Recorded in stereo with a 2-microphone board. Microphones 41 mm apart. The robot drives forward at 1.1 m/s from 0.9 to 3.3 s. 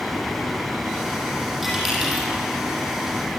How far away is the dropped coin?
About 7.5 m.